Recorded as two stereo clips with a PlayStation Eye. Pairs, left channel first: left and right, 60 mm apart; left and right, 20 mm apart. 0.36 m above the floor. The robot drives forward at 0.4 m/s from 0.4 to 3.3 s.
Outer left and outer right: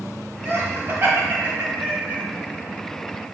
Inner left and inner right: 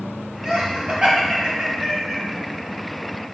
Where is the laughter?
45° right (ahead or behind), 2 m; by 2.2 s 35° right (ahead or behind), 2.5 m.